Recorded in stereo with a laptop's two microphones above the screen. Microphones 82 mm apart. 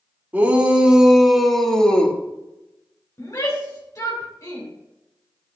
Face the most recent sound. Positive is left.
turn(degrees=40)  # may be behind; listen again after turning